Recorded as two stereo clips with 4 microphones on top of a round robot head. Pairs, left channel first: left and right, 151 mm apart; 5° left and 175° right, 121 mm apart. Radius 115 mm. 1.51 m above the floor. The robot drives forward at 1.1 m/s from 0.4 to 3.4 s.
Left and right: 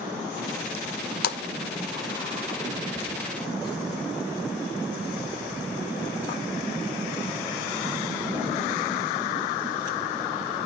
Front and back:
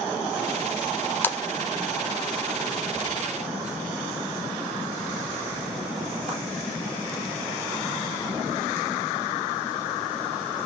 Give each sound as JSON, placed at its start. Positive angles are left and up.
{"t": 1.2, "sound": "a splash", "azimuth_deg": 75, "distance_m": 0.9}